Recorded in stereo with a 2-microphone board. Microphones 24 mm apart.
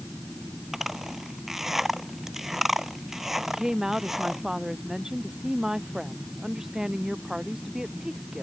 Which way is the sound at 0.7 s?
20° right (ahead or behind).